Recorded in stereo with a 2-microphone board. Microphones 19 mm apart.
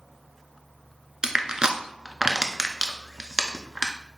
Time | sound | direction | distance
1.2 | crushing | 30° right (ahead or behind) | 0.6 m